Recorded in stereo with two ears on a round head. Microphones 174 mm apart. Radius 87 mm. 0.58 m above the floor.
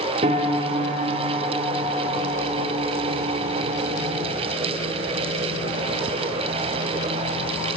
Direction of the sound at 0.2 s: 35° right (ahead or behind).